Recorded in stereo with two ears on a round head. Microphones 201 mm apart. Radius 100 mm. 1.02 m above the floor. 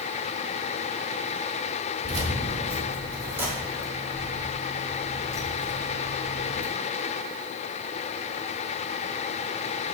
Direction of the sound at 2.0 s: 35° right (ahead or behind).